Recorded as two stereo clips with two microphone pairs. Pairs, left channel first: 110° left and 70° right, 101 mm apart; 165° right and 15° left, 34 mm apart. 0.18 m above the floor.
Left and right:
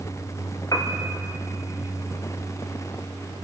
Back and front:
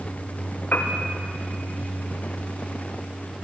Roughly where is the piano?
Behind.